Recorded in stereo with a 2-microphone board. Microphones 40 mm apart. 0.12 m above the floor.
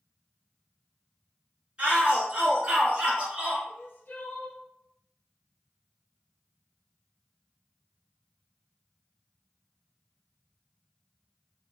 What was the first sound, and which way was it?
A shout, 25° right (ahead or behind).